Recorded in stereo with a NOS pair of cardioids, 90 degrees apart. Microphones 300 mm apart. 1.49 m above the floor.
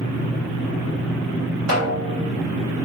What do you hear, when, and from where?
1.7 s a snare drum: 60° right, 1.2 m